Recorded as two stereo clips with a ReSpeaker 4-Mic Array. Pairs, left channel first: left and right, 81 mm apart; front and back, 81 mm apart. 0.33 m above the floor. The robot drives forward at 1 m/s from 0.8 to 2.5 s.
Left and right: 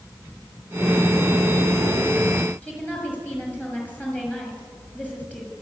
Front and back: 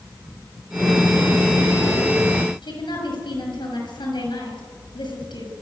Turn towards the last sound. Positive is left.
turn(degrees=20)